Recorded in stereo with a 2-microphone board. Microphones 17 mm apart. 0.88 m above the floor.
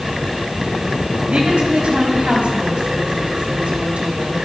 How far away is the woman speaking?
About 5 m.